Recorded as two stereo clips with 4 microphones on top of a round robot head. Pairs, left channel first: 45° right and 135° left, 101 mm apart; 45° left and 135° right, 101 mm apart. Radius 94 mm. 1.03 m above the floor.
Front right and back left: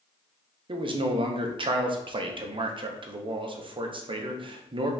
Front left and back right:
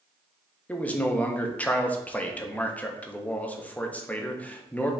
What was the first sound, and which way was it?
A man speaking, 120° left.